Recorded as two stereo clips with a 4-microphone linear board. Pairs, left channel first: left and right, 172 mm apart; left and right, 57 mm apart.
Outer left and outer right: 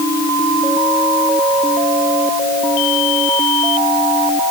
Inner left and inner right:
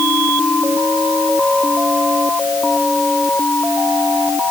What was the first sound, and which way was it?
Only background noise.